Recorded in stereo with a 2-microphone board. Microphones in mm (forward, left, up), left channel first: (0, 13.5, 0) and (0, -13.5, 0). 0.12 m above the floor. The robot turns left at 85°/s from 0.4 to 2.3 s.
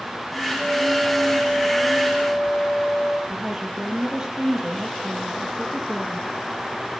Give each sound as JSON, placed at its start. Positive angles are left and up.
{"t": 0.6, "sound": "a flute", "azimuth_deg": -130, "distance_m": 4.0}
{"t": 3.3, "sound": "a woman speaking", "side_deg": -35, "distance_m": 3.0}